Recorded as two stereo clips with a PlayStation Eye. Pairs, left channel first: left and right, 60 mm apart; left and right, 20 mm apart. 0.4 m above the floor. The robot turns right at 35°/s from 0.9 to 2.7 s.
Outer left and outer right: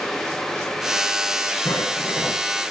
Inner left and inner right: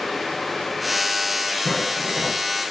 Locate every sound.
1.6 s footsteps: 65° left (ahead or behind), 9.5 m; by 2.4 s 40° left (ahead or behind), 9.5 m